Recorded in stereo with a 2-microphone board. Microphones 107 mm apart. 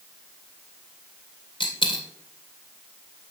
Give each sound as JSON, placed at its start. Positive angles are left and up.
{"t": 1.6, "sound": "a dropped coin", "side_deg": 50, "distance_m": 2.5}